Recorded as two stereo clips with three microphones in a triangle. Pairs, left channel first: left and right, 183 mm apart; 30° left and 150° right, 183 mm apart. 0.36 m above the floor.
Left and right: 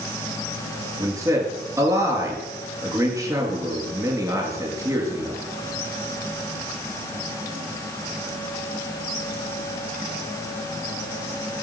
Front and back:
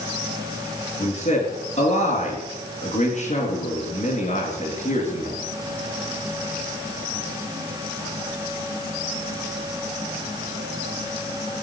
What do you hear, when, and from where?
1.0 s a man speaking: 20° right, 4.5 m